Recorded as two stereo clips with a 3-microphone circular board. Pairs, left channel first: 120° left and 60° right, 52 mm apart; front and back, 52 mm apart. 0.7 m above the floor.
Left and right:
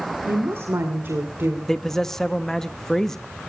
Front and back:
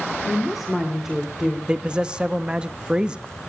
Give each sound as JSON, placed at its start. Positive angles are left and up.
{"t": 0.3, "sound": "a woman speaking", "azimuth_deg": -90, "distance_m": 1.8}
{"t": 1.7, "sound": "a man speaking", "azimuth_deg": -170, "distance_m": 0.7}